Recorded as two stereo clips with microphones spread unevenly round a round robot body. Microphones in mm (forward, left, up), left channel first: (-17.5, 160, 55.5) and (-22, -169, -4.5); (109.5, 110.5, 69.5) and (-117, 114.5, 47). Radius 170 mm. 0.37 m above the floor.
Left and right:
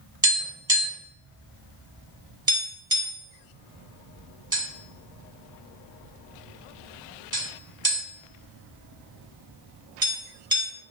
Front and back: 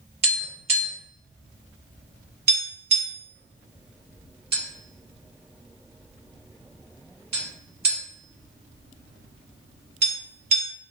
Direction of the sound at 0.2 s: 145° right.